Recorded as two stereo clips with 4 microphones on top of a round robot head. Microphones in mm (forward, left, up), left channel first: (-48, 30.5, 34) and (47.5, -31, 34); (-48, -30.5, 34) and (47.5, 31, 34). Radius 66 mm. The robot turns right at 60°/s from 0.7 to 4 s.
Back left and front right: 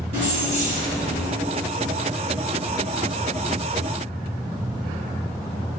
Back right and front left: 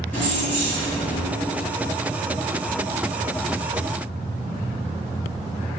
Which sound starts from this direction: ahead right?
Keys jangling, at 0.1 s.